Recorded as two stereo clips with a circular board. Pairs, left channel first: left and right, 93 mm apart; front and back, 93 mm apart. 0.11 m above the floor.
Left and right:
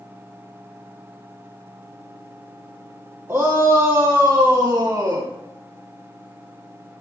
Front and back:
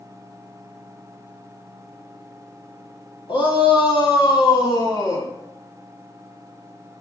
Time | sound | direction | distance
3.3 | a shout | 25° right | 4 m